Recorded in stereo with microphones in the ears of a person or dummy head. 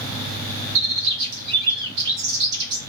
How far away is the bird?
About 0.8 m.